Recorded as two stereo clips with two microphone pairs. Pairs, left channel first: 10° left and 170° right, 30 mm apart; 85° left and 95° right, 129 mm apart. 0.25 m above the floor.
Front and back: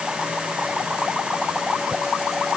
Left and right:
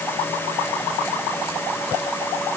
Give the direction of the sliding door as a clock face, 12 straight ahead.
I don't hear a sliding door.